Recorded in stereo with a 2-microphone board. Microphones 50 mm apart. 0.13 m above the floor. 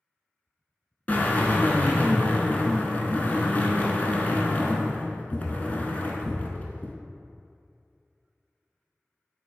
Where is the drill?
35° left (ahead or behind), 0.6 m.